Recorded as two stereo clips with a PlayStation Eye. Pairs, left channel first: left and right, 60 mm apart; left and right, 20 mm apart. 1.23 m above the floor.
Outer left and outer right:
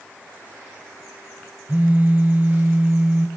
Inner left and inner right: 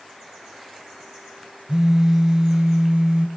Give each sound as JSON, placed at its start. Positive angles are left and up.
{"t": 1.7, "sound": "a phone buzzing", "side_deg": -30, "distance_m": 1.2}